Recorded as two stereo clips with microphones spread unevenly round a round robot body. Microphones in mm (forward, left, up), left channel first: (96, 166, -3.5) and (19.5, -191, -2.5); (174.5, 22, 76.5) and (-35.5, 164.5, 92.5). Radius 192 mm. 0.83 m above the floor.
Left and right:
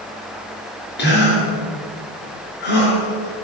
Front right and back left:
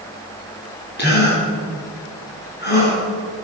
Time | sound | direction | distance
1.0 | a gasp | 15° left | 6 m